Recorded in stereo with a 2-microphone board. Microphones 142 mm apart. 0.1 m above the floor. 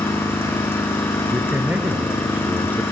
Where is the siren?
I don't hear a siren.